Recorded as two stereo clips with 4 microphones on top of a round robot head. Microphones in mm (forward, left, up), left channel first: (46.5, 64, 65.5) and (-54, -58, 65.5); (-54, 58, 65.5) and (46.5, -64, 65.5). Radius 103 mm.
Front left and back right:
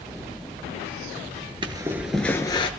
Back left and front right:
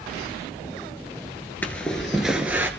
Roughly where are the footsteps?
Behind.